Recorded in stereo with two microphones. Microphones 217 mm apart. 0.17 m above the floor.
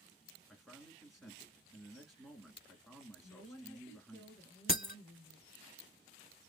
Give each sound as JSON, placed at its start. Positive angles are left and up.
{"t": 0.5, "sound": "a man speaking", "side_deg": 0, "distance_m": 2.5}
{"t": 3.2, "sound": "a woman speaking", "side_deg": 10, "distance_m": 2.5}
{"t": 4.7, "sound": "breaking glass", "side_deg": 45, "distance_m": 0.6}